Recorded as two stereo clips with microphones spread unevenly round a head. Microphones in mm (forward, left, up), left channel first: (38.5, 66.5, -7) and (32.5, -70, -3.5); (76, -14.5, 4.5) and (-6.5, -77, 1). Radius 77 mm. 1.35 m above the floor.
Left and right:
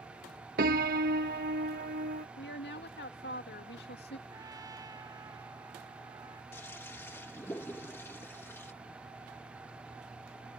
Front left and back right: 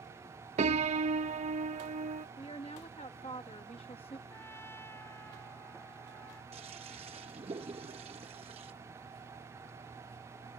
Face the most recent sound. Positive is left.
turn(degrees=165)